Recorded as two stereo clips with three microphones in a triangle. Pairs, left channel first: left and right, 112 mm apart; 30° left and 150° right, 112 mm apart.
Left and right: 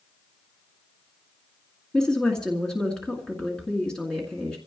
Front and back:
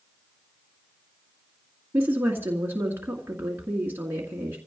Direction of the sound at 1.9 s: 165° left.